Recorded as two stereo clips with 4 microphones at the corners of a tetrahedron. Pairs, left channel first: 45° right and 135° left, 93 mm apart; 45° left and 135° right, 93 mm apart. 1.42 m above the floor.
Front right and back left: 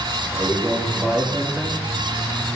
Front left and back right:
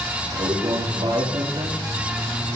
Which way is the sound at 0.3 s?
145° right.